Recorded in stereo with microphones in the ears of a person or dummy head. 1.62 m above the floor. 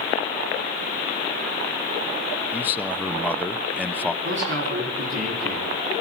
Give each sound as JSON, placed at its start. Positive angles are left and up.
{"t": 2.5, "sound": "a man speaking", "side_deg": 10, "distance_m": 0.9}
{"t": 4.2, "sound": "a man speaking", "side_deg": -70, "distance_m": 5.0}